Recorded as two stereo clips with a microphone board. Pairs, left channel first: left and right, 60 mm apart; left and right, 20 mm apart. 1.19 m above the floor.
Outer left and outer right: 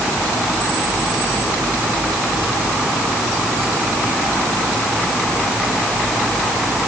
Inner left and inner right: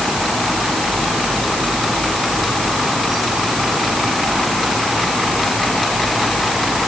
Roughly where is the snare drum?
I don't hear a snare drum.